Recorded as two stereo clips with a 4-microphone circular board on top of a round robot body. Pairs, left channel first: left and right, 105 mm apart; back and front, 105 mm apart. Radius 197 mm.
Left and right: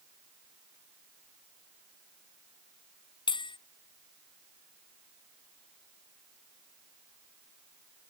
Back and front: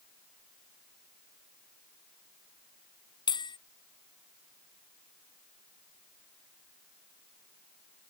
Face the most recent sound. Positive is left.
turn(degrees=135)